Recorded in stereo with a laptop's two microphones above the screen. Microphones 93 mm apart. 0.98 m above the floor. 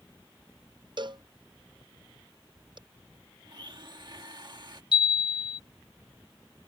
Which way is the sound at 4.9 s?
60° left (ahead or behind).